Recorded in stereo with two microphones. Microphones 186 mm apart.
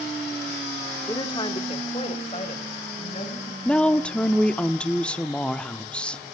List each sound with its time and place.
1.1 s a woman speaking: 15° left (ahead or behind), 1.2 m; by 3.5 s 40° left (ahead or behind), 4.5 m
3.6 s a woman speaking: 5° left (ahead or behind), 0.8 m